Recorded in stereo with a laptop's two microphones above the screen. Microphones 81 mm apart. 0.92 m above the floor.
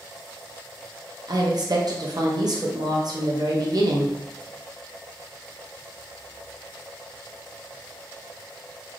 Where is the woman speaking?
50° right (ahead or behind), 0.6 m.